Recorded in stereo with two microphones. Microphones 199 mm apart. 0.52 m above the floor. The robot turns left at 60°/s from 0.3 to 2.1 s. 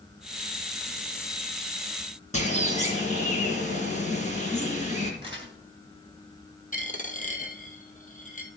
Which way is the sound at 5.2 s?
25° right (ahead or behind).